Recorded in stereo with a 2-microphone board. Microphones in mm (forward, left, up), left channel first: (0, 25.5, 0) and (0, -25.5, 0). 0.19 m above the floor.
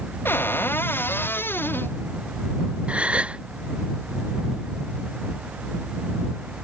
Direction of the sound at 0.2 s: 45° left (ahead or behind).